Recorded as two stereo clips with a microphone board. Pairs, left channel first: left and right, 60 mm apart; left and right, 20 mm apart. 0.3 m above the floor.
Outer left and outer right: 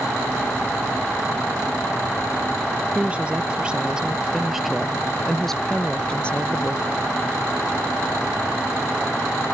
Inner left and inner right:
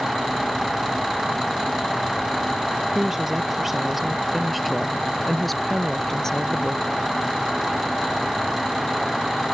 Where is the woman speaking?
20° right (ahead or behind); by 7.0 s 30° left (ahead or behind).